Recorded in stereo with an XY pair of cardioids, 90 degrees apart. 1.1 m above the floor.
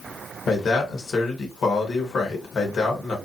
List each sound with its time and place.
0.5 s a man speaking: 60° left, 1.4 m